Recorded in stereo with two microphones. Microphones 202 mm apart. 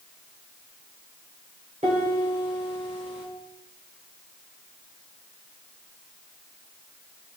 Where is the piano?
35° right (ahead or behind), 3.5 m.